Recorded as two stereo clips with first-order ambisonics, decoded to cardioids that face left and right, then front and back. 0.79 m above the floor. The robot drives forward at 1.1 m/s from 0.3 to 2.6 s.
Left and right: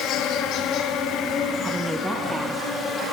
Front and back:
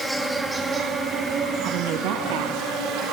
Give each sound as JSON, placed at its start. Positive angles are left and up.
{"t": 0.0, "sound": "an insect", "azimuth_deg": 100, "distance_m": 1.8}
{"t": 1.6, "sound": "a woman speaking", "azimuth_deg": -170, "distance_m": 0.5}